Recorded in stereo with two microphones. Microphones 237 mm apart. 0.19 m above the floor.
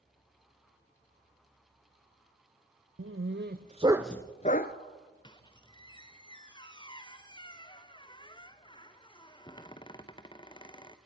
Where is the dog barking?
65° right (ahead or behind), 1.2 m; by 4.8 s 45° left (ahead or behind), 1.0 m.